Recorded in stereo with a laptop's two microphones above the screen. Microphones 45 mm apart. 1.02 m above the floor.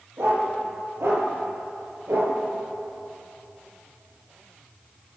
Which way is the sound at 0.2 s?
80° right.